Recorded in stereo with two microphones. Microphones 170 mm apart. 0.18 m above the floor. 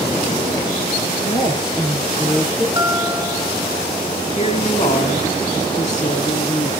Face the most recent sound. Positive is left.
turn(degrees=45)  # may be behind; listen again after turning